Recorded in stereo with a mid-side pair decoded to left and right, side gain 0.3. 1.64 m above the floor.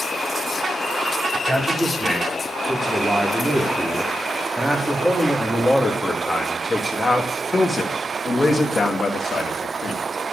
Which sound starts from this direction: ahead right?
A man speaking, at 1.3 s.